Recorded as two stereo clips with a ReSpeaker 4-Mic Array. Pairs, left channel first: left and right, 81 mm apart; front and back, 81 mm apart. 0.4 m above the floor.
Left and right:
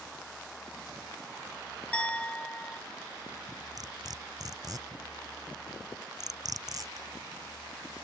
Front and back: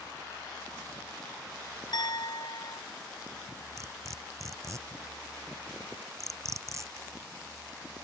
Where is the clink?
15° left.